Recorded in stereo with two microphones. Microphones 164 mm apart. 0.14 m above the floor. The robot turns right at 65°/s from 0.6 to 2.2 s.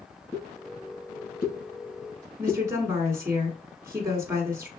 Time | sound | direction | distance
0.3 | a pop | 20° left (ahead or behind) | 2.5 m
2.4 | a woman speaking | 15° right (ahead or behind) | 1.7 m